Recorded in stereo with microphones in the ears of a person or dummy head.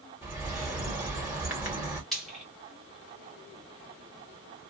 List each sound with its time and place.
0.2 s a bird: 5° right (ahead or behind), 1.2 m
2.1 s frying: 5° left (ahead or behind), 1.1 m